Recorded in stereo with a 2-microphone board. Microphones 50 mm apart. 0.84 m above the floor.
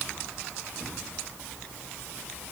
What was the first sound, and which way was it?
Only background noise.